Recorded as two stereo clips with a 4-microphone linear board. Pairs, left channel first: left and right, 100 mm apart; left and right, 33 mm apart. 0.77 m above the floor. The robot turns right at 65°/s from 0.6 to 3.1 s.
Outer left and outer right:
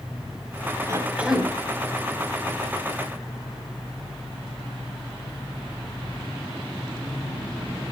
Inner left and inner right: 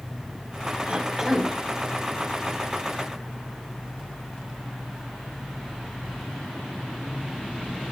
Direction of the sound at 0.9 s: 35° right.